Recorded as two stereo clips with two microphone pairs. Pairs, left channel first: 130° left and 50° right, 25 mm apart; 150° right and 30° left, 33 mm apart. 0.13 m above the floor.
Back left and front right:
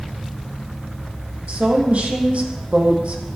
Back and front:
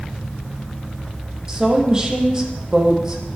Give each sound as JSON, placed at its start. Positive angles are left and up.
{"t": 1.5, "sound": "a woman speaking", "azimuth_deg": -40, "distance_m": 4.5}